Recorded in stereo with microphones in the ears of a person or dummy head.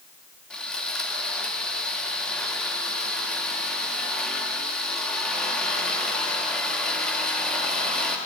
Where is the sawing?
10° left (ahead or behind), 3.5 m.